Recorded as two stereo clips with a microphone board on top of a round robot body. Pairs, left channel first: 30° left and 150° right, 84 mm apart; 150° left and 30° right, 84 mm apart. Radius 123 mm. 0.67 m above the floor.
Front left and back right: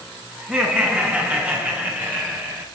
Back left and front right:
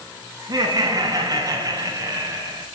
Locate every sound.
0.4 s laughter: 75° right, 8.5 m; by 2.6 s 85° right, 8.5 m